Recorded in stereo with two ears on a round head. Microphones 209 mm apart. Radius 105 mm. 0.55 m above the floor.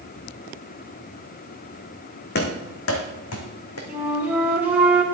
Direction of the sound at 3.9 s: 5° right (ahead or behind).